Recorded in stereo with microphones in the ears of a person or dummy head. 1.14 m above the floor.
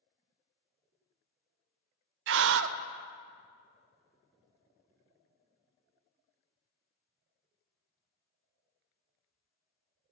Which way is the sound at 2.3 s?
65° right (ahead or behind).